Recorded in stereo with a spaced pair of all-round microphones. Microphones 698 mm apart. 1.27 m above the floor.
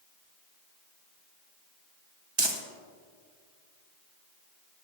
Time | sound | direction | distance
2.4 | crumpling | 40° right (ahead or behind) | 0.8 m